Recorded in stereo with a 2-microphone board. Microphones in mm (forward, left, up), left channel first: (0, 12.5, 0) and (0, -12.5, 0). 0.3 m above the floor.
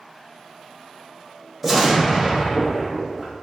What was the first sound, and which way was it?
An explosion, 10° right (ahead or behind).